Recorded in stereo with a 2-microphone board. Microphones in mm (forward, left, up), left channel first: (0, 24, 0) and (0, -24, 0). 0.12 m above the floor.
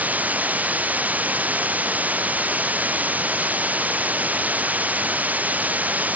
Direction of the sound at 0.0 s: 35° right (ahead or behind).